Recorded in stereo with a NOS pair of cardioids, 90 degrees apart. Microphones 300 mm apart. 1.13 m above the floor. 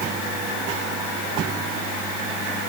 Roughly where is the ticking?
I don't hear ticking.